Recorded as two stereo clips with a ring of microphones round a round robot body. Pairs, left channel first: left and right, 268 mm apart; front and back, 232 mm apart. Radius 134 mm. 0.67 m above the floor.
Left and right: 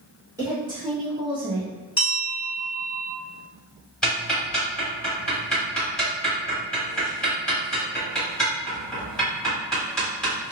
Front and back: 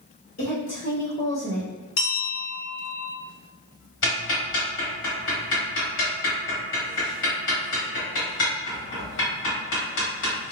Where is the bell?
15° left, 1.6 m.